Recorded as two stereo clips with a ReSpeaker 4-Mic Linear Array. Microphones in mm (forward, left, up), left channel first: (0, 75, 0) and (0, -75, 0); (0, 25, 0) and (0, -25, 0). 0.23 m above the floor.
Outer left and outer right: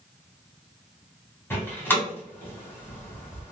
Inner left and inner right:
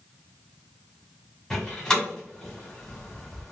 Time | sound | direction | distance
1.5 | a door slam | 15° left (ahead or behind) | 1.5 m